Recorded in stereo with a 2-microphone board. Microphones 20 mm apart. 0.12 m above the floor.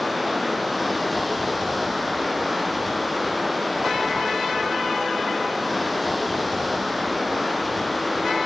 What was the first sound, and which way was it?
Running water, centre (ahead or behind).